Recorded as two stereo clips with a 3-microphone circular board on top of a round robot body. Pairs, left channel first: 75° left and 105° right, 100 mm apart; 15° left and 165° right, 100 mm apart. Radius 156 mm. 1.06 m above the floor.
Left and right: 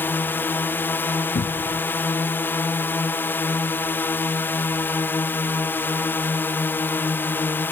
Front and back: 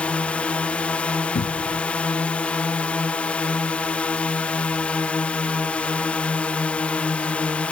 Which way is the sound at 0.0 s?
70° left.